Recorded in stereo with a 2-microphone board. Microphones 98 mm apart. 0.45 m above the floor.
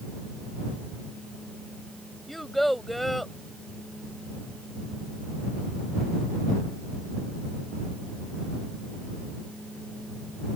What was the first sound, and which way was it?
A child speaking, centre (ahead or behind).